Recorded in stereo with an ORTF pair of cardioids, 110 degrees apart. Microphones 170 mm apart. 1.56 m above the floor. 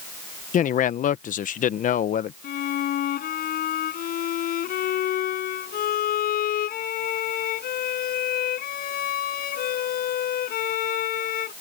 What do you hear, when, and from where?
0.5 s a man speaking: 50° left
2.4 s a violin: 60° left